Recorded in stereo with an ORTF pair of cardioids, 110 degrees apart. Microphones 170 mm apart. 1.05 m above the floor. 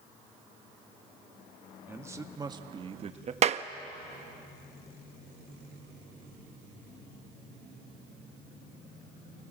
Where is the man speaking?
15° right, 1.8 m; by 3.3 s 40° right, 1.5 m.